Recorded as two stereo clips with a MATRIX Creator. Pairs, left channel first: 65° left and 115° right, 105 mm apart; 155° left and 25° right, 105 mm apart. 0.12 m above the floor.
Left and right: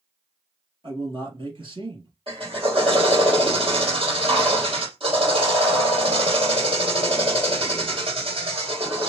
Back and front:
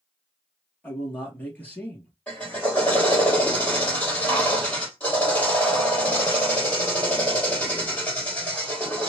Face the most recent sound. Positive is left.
turn(degrees=-130)